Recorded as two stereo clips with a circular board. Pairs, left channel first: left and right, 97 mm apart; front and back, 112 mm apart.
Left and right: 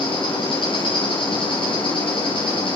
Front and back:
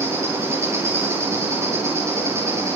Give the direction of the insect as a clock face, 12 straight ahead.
8 o'clock.